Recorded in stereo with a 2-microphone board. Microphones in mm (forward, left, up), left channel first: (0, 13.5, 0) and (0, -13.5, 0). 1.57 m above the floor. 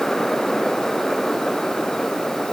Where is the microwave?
No microwave in this recording.